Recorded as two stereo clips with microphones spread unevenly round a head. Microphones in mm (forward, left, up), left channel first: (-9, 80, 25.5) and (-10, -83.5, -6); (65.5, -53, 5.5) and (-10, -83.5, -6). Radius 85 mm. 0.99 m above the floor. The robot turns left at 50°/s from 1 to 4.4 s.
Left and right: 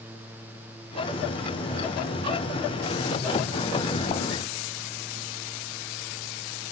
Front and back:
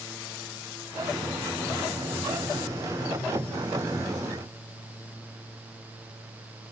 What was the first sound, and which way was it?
Only background noise.